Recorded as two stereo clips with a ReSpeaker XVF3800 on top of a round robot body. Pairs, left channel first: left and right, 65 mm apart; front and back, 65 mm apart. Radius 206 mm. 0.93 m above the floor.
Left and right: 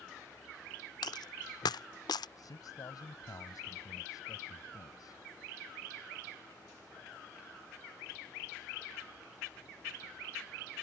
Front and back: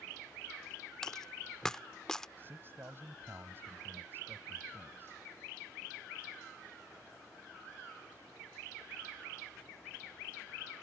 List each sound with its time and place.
1.0 s a dropped coin: 85° left
2.4 s a man speaking: 120° left